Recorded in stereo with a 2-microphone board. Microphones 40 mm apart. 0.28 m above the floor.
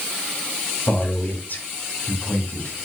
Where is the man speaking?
50° left (ahead or behind), 2 m.